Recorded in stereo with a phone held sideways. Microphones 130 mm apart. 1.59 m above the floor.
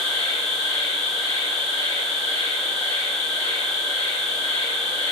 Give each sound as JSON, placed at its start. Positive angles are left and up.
{"t": 0.0, "sound": "an insect", "side_deg": -40, "distance_m": 1.3}